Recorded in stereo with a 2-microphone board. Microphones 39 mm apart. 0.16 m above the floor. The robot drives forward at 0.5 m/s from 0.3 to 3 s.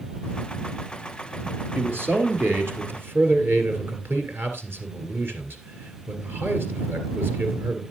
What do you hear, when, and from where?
1.8 s a man speaking: 60° right (ahead or behind), 3 m; by 7.8 s 65° right (ahead or behind), 2.5 m